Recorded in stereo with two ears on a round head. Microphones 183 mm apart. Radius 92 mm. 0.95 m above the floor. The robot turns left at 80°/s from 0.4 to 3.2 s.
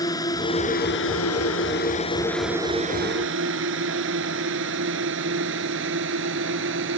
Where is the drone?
20° left (ahead or behind); by 7.0 s 60° right (ahead or behind).